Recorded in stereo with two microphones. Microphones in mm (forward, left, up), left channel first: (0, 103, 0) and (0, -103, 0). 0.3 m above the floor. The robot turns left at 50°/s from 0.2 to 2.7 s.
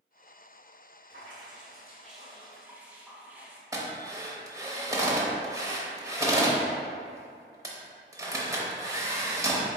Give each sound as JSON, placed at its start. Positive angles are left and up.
{"t": 1.1, "sound": "dripping", "azimuth_deg": -90, "distance_m": 0.8}
{"t": 3.7, "sound": "a drill", "side_deg": -15, "distance_m": 0.8}